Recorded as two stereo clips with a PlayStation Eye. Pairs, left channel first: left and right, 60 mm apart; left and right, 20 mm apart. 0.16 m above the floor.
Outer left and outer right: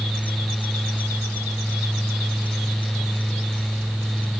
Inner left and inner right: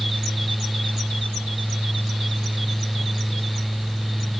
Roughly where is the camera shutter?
I don't hear a camera shutter.